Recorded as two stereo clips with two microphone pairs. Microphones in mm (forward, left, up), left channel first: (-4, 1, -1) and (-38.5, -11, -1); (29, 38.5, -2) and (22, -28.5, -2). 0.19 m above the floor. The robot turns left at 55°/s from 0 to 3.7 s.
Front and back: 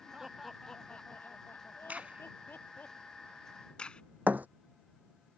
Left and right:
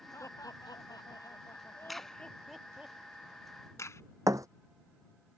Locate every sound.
0.1 s laughter: 125° left; by 2.9 s 25° right
1.9 s a crack: 175° left; by 4.0 s 75° left
4.3 s a thud: 125° right